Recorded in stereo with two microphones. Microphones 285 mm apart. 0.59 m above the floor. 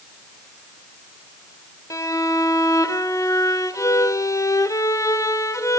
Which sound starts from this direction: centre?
A violin, at 1.9 s.